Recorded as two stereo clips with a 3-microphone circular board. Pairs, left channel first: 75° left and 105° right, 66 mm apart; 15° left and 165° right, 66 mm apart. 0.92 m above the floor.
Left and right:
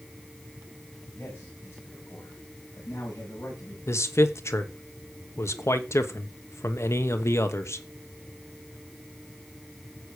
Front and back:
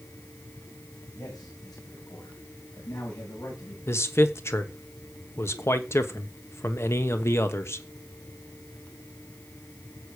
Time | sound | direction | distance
1.1 | a man speaking | 20° left | 6 m
3.9 | a man speaking | 45° left | 1.1 m